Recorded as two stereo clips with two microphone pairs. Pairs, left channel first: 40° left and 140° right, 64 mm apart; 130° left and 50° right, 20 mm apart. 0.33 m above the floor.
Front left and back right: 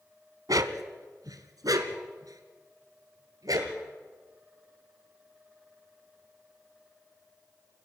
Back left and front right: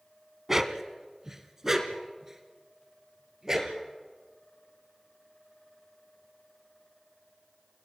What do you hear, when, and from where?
0.5 s a dog barking: 120° right, 1.1 m